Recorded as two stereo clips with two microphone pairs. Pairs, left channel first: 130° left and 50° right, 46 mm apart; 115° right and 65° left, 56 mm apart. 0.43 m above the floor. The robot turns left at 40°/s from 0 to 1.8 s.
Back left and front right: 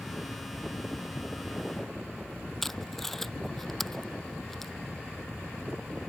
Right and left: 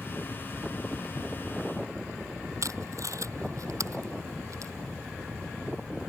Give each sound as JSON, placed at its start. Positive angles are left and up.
{"t": 2.6, "sound": "tape being pulled", "azimuth_deg": 45}